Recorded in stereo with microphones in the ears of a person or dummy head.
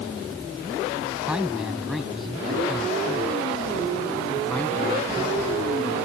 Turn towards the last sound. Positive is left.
turn(degrees=20)  # may be behind; listen again after turning